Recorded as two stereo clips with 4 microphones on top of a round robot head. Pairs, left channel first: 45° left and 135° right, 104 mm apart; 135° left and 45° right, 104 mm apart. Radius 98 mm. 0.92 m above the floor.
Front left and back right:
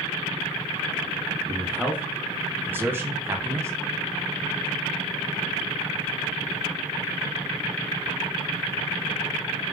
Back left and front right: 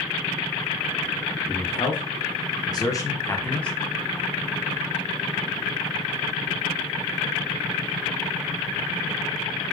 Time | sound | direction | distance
1.5 | a man speaking | 150° left | 1.7 m